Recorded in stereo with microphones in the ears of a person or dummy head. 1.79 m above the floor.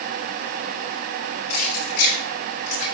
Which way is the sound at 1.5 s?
55° left (ahead or behind).